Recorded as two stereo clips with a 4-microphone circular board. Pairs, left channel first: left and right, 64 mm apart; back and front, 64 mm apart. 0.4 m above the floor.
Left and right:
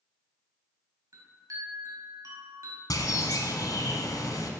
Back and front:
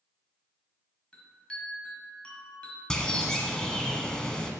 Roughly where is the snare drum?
I don't hear a snare drum.